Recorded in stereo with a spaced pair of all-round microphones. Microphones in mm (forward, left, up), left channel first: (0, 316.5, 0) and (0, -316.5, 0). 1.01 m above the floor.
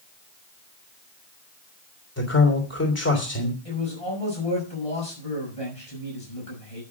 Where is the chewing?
I don't hear chewing.